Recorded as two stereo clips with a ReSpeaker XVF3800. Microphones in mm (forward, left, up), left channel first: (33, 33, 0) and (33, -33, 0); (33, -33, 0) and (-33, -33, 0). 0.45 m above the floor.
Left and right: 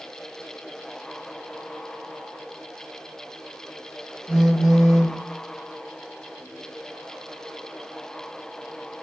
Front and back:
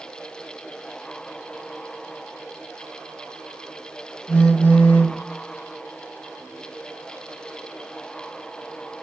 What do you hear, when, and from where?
4.3 s a phone buzzing: 10° left, 0.6 m